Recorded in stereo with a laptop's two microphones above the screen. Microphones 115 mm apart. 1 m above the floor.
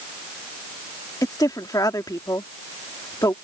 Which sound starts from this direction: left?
A woman speaking, at 1.2 s.